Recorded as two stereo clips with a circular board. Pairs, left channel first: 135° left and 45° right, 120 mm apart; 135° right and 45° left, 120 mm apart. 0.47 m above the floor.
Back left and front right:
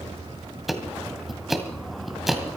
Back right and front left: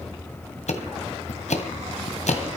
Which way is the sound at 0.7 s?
135° right.